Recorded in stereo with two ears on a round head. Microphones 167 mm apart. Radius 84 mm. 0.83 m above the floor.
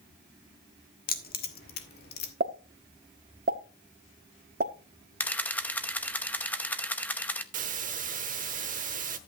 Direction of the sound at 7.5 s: 45° right (ahead or behind).